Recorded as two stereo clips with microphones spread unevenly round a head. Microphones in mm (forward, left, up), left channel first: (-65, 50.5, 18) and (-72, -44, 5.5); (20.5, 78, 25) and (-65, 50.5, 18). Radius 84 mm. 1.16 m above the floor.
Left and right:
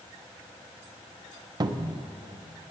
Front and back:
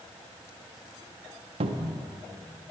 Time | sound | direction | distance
1.6 | a cupboard door | 145° right | 0.5 m